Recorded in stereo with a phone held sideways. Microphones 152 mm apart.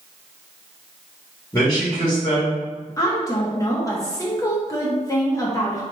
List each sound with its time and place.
1.5 s a man speaking: 15° left (ahead or behind), 1.8 m
3.0 s a woman speaking: 20° left (ahead or behind), 0.6 m